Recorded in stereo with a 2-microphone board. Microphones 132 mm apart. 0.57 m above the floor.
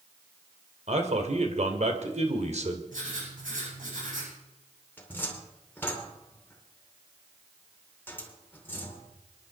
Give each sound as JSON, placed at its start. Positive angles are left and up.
{"t": 0.9, "sound": "a man speaking", "side_deg": -60, "distance_m": 2.5}
{"t": 2.9, "sound": "writing", "side_deg": -90, "distance_m": 10.0}
{"t": 5.0, "sound": "a cupboard door", "side_deg": 15, "distance_m": 2.5}